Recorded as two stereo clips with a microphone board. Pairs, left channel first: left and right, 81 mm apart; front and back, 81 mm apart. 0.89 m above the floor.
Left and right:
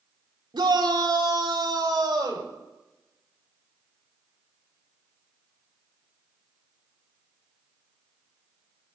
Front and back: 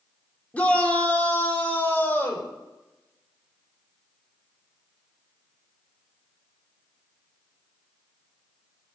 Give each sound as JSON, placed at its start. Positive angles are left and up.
{"t": 0.5, "sound": "a shout", "azimuth_deg": -75, "distance_m": 3.0}